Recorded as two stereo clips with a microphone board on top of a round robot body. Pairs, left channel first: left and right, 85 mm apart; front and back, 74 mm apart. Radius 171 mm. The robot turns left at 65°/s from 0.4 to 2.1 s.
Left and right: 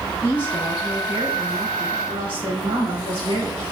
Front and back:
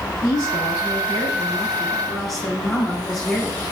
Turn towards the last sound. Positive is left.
turn(degrees=-85)